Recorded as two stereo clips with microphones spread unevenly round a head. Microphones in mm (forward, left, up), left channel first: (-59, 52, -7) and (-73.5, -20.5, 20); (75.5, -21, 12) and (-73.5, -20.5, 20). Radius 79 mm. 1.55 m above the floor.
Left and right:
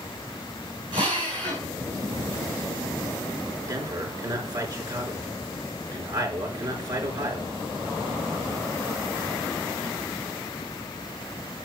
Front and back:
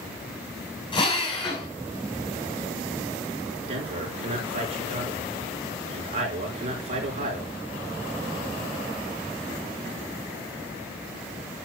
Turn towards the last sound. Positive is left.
turn(degrees=-135)